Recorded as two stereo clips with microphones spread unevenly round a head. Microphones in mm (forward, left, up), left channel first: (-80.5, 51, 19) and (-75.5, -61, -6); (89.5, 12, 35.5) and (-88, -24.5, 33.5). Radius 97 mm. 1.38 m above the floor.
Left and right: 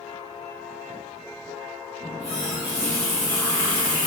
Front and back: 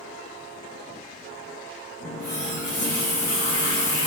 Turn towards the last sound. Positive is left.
turn(degrees=20)